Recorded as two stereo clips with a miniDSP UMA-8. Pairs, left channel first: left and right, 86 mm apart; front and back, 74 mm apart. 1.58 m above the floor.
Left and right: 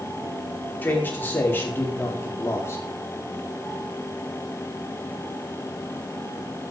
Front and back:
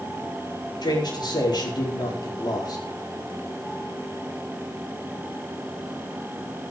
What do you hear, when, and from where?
0.8 s a man speaking: 20° left, 5 m; by 2.9 s 30° left, 4 m